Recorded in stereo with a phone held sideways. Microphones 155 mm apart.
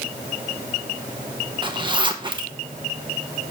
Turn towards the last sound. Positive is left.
turn(degrees=-30)  # may be behind; listen again after turning